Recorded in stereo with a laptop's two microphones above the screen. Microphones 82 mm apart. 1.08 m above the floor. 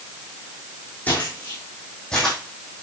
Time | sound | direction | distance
1.1 | footsteps | 20° left (ahead or behind) | 3 m